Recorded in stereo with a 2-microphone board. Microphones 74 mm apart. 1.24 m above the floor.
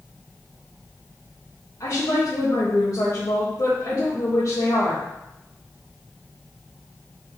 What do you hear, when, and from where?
1.8 s a woman speaking: 55° left (ahead or behind), 1.4 m